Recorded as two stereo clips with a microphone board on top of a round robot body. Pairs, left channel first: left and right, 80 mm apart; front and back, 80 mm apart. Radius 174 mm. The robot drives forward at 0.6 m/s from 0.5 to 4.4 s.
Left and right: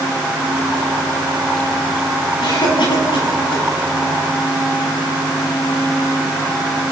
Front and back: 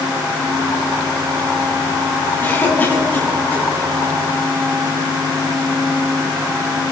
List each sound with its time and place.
2.4 s a cough: 65° left, 9.5 m; by 3.6 s 70° left, 9 m